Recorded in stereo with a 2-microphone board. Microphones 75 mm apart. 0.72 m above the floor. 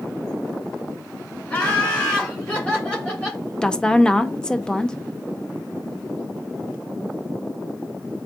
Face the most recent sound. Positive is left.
turn(degrees=10)  # may be behind; listen again after turning